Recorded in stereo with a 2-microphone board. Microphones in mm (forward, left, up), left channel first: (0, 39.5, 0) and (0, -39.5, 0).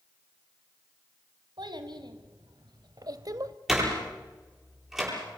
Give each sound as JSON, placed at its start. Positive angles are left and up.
{"t": 1.6, "sound": "a child speaking", "side_deg": -70, "distance_m": 2.5}
{"t": 3.7, "sound": "a door slam", "side_deg": -5, "distance_m": 9.0}